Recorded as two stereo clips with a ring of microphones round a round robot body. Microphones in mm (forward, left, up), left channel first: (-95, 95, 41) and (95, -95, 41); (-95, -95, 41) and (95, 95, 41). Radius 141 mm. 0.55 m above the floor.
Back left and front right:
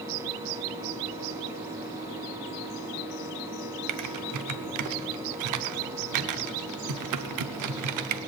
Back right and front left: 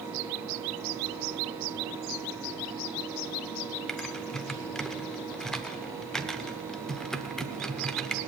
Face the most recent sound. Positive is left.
turn(degrees=-45)